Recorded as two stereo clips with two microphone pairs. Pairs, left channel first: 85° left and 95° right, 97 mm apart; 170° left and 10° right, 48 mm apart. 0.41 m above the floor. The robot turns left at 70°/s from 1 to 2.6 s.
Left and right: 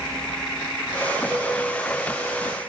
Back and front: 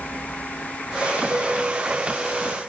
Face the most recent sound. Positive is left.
turn(degrees=-125)